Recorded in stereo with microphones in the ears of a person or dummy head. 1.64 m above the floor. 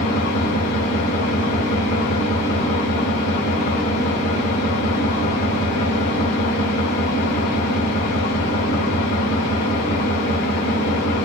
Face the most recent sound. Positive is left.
turn(degrees=45)  # may be behind; listen again after turning